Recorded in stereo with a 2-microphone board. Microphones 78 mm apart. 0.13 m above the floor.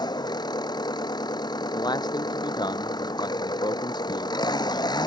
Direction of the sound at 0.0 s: 65° left (ahead or behind).